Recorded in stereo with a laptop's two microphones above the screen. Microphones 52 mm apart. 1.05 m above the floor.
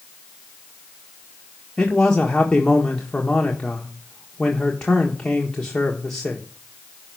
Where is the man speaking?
15° left (ahead or behind), 1.5 m.